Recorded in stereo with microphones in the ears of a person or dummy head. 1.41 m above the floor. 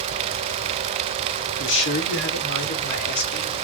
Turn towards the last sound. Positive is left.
turn(degrees=60)  # may be behind; listen again after turning